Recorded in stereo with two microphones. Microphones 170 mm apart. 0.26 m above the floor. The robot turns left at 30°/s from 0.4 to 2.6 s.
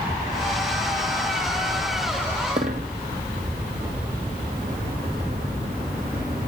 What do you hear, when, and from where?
2.6 s a dropped coin: 45° right (ahead or behind), 1.4 m; by 6.5 s 50° right (ahead or behind), 1.4 m